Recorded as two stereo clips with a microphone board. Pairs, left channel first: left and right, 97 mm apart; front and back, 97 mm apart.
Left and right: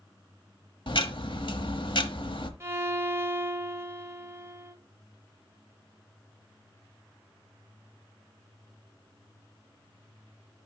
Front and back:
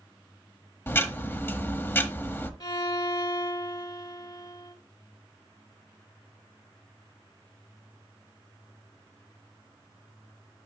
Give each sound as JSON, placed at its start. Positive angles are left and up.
{"t": 0.9, "sound": "ticking", "azimuth_deg": 65, "distance_m": 1.0}
{"t": 2.6, "sound": "a violin", "azimuth_deg": -30, "distance_m": 1.3}